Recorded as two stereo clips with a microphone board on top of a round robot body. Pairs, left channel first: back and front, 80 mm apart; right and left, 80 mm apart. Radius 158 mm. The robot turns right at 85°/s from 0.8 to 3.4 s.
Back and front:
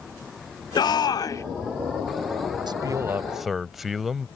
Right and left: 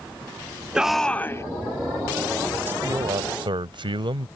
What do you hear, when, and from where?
0.8 s a shout: 170° left; by 1.4 s 135° right
2.7 s a man speaking: 25° left; by 4.3 s 85° left